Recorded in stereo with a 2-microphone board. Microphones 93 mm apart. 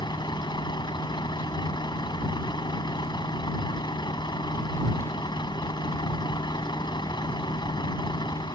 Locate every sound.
0.0 s a vehicle: 50° left (ahead or behind)